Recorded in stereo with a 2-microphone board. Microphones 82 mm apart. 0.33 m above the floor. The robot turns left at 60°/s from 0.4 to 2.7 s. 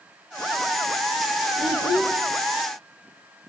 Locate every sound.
1.6 s a child speaking: 145° left, 5 m; by 2.2 s 110° left, 5 m